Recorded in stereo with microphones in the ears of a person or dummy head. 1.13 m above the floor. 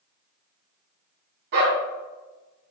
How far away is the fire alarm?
I don't hear a fire alarm.